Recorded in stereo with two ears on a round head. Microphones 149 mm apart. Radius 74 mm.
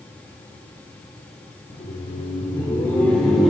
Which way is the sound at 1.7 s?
50° left (ahead or behind).